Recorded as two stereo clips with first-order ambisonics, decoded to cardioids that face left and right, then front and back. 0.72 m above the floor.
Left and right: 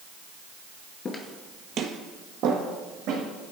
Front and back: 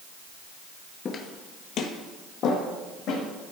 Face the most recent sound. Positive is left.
turn(degrees=-60)